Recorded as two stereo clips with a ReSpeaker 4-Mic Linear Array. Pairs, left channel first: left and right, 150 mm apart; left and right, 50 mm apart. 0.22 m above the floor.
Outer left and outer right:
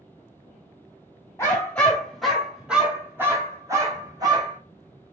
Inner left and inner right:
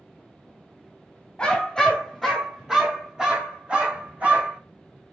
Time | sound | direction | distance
1.4 | a dog barking | 15° left (ahead or behind) | 1.6 m